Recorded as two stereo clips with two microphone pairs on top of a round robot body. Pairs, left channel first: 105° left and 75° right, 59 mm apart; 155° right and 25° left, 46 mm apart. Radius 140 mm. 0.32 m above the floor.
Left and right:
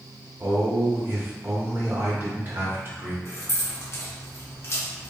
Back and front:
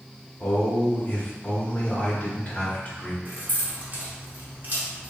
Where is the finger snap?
No finger snap in this recording.